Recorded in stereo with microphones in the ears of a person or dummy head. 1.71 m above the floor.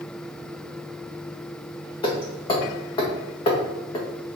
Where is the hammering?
25° left (ahead or behind), 1.6 m.